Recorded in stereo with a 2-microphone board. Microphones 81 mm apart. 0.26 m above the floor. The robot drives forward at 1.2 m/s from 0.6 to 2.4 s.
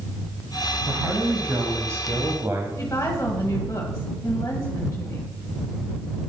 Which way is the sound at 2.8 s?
35° left (ahead or behind).